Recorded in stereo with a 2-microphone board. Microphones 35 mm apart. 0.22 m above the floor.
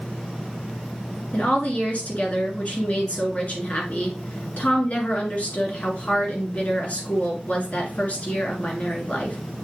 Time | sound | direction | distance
1.3 | a woman speaking | 45° left (ahead or behind) | 2.5 m